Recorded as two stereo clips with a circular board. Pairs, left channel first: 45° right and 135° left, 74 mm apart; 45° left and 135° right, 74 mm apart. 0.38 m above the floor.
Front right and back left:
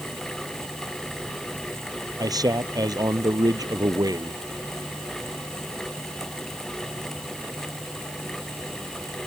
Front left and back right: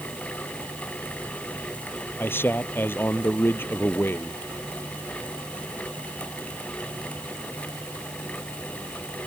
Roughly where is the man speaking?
Left.